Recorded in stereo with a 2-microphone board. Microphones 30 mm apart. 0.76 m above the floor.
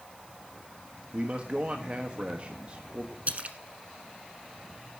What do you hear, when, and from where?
1.1 s a man speaking: 40° right (ahead or behind), 1.3 m
3.3 s a splash: 45° right (ahead or behind), 1.2 m